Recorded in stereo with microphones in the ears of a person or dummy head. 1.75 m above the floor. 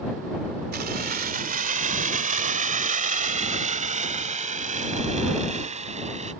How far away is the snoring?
No snoring in this recording.